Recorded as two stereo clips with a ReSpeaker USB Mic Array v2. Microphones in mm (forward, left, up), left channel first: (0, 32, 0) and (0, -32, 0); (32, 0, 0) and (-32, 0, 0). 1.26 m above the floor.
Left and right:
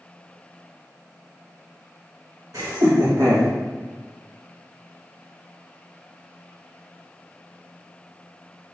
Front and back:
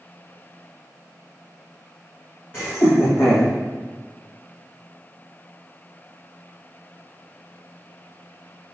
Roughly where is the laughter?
Ahead right.